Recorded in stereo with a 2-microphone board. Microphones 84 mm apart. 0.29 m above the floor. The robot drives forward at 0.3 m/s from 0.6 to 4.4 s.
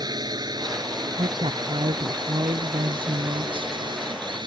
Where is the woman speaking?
85° right.